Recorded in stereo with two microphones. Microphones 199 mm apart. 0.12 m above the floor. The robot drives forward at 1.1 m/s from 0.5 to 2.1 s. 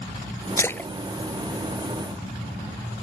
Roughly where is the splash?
Centre.